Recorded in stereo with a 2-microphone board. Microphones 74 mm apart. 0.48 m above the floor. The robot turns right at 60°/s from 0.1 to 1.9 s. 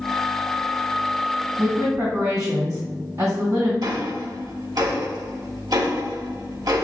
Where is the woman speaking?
65° right (ahead or behind), 2 m; by 3.7 s 50° right (ahead or behind), 2 m.